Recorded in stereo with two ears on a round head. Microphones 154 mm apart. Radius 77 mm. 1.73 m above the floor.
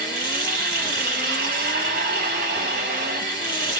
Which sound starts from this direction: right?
Running water, at 0.0 s.